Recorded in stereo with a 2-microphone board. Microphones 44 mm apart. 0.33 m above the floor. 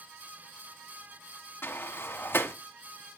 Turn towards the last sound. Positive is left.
turn(degrees=65)  # may be behind; listen again after turning